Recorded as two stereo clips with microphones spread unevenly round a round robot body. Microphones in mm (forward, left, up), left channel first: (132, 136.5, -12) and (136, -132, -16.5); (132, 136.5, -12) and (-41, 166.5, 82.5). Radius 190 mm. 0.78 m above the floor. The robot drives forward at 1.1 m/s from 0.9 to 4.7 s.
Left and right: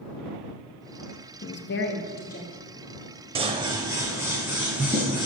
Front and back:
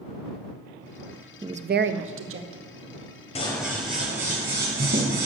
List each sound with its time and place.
1.4 s a woman speaking: 65° left, 0.6 m; by 2.7 s 165° left, 1.4 m
3.4 s scissors: 100° right, 0.5 m; by 5.3 s 175° right, 1.6 m